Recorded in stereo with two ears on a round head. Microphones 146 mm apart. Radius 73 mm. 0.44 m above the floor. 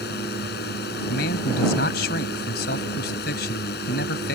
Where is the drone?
65° left (ahead or behind).